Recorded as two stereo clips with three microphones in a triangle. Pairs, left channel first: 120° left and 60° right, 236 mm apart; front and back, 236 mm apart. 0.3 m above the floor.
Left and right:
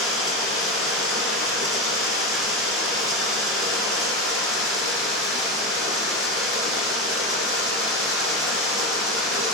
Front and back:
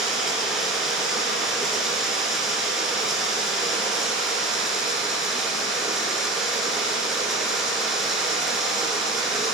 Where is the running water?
90° right, 1.3 m.